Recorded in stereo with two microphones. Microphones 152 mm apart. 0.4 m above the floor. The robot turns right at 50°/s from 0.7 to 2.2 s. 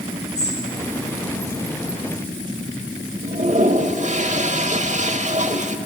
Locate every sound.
0.3 s a bird: 45° left (ahead or behind), 3.5 m
3.2 s a toilet flushing: 55° right (ahead or behind), 1.1 m